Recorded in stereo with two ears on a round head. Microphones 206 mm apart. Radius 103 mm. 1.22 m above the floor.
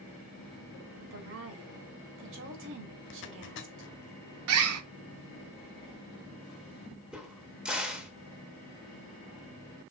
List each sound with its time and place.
1.0 s a woman speaking: 55° right (ahead or behind), 2.5 m
3.1 s a zipper: 55° left (ahead or behind), 1.2 m
4.5 s a bird: 70° right (ahead or behind), 1.0 m
7.1 s a crack: 5° right (ahead or behind), 1.5 m